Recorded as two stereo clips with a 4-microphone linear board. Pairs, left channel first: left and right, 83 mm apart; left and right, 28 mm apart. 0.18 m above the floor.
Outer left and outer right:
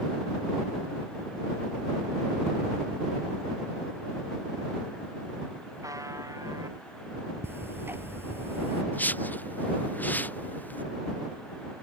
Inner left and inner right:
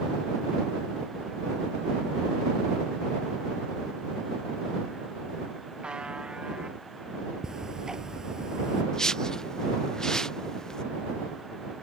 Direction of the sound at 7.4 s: 30° right (ahead or behind).